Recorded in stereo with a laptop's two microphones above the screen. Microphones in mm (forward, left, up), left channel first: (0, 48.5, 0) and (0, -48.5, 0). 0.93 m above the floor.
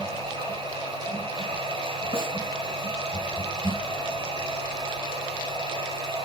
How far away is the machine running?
About 5 m.